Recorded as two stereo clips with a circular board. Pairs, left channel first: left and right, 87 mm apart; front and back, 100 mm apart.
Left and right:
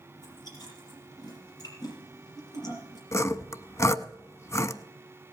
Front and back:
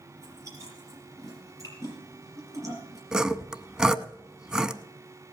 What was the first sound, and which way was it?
Chewing, 125° left.